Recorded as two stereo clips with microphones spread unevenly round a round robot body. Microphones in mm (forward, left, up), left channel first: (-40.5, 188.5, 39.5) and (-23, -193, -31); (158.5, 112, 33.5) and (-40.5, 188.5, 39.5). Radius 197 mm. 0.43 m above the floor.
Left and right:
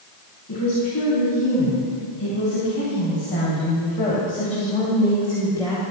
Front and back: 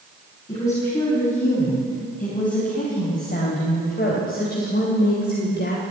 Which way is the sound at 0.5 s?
35° left.